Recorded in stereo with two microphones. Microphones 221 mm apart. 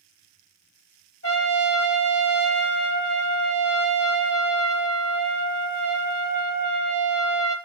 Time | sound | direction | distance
1.2 | a trumpet | 85° left | 0.8 m